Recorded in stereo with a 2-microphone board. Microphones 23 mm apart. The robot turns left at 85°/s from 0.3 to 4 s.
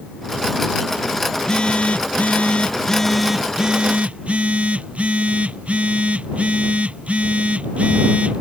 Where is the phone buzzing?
160° left; by 8.4 s 65° right.